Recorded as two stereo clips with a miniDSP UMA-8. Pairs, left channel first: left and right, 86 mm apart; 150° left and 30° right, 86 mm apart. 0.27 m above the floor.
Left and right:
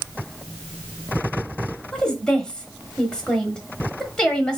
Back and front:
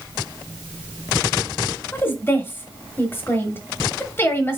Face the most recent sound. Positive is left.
turn(degrees=155)